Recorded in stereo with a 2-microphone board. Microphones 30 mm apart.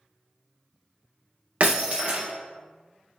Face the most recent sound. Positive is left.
turn(degrees=-45)  # may be behind; listen again after turning